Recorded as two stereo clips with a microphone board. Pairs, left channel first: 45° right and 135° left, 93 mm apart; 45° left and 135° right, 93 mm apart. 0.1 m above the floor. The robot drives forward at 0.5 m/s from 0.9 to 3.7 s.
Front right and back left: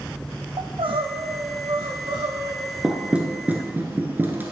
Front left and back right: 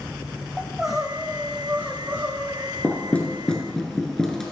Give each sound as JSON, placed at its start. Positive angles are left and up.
{"t": 0.6, "sound": "crying", "azimuth_deg": 140, "distance_m": 1.1}
{"t": 2.8, "sound": "knocking", "azimuth_deg": 65, "distance_m": 1.3}